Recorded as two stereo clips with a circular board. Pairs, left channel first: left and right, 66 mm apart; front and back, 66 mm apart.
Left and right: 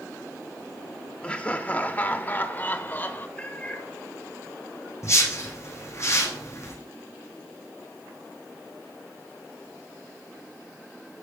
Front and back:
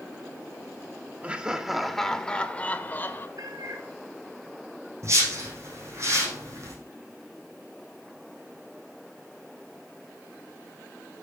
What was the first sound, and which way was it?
Laughter, 140° left.